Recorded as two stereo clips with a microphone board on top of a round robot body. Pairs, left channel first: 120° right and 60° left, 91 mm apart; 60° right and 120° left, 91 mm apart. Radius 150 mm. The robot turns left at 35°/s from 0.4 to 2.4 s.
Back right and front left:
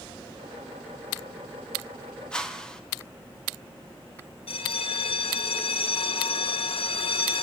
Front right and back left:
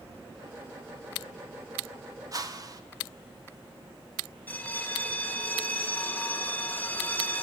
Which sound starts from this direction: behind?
A whoosh, at 2.3 s.